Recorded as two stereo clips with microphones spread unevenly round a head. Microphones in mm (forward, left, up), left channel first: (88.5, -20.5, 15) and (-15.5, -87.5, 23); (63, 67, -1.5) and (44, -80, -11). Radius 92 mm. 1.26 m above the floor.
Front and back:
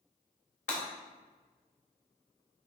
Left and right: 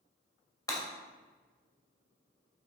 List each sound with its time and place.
0.7 s breaking glass: 20° left, 2.5 m